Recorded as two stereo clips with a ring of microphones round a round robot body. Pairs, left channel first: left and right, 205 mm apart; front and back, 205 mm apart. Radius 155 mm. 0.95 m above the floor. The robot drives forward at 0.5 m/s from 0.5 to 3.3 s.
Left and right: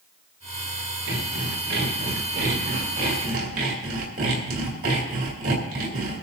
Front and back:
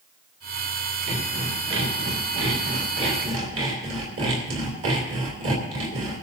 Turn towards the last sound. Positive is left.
turn(degrees=-150)